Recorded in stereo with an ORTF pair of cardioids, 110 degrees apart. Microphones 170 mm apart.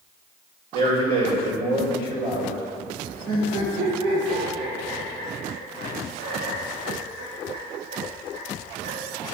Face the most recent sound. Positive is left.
turn(degrees=-60)